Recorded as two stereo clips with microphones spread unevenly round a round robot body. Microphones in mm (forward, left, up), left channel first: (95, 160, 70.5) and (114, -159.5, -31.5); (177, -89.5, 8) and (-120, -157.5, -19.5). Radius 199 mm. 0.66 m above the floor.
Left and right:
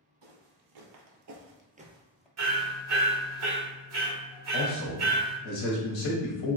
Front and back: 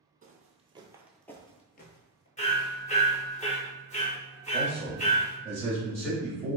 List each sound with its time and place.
0.2 s footsteps: 100° right, 1.2 m; by 2.3 s 25° left, 0.9 m
2.4 s hammering: 55° right, 1.7 m
4.5 s a man speaking: 105° left, 1.0 m